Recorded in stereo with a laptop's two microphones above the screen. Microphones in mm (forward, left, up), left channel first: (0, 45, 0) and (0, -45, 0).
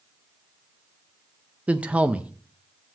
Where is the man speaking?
15° right (ahead or behind), 0.6 m.